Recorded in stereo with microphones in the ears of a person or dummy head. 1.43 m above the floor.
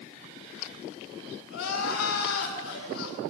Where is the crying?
80° left, 7 m.